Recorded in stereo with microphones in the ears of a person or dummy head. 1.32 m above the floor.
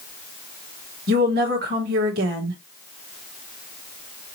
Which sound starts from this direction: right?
A woman speaking, at 1.1 s.